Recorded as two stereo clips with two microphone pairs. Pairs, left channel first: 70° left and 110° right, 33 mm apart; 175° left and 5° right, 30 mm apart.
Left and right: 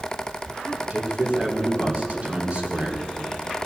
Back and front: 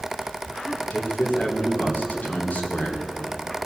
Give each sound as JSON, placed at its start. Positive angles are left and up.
{"t": 0.9, "sound": "a man speaking", "azimuth_deg": -155, "distance_m": 2.0}